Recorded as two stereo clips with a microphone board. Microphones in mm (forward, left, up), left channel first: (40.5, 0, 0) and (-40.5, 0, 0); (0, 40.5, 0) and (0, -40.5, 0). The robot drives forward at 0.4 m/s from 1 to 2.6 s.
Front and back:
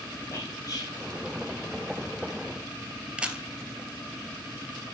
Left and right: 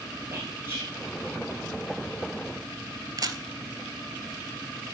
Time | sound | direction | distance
0.3 | whispering | 35° right | 2.5 m
3.2 | a camera shutter | 110° right | 0.8 m